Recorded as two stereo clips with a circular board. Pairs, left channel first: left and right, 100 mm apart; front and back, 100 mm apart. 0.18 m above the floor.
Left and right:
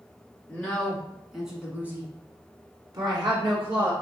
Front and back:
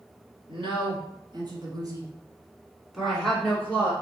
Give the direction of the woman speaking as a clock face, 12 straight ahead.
6 o'clock.